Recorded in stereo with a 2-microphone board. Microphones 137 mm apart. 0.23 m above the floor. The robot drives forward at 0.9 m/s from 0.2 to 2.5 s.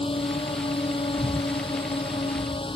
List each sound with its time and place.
0.0 s a drone: 45° left (ahead or behind); by 2.8 s 40° left (ahead or behind)
1.2 s breathing: 10° right (ahead or behind); by 2.8 s 5° right (ahead or behind)